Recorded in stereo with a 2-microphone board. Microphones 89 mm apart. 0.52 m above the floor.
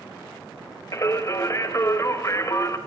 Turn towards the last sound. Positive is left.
turn(degrees=35)  # may be behind; listen again after turning